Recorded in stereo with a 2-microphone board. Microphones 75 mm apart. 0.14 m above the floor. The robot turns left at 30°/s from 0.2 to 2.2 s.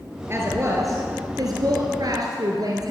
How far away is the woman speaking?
About 2 m.